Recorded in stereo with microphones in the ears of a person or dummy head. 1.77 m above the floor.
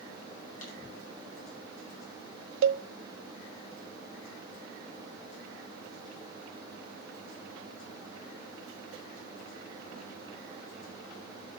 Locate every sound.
0.6 s a clap: 50° left (ahead or behind), 7.5 m
2.6 s a cowbell: 60° right (ahead or behind), 0.6 m